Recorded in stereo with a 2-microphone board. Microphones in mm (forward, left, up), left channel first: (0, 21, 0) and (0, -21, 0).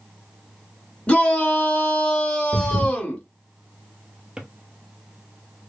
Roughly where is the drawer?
Right.